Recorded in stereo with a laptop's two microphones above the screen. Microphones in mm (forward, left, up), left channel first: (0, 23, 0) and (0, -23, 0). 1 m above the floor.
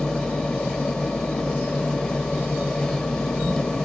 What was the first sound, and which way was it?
A machine running, 15° left (ahead or behind).